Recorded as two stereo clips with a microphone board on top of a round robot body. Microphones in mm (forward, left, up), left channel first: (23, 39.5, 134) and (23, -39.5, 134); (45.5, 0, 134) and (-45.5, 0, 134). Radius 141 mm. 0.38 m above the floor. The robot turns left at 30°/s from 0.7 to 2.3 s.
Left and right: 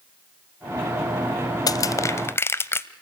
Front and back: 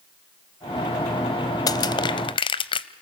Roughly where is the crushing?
Ahead left.